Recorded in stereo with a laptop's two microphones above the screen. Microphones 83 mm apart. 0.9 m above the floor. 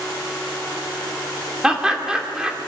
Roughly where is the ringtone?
No ringtone in this recording.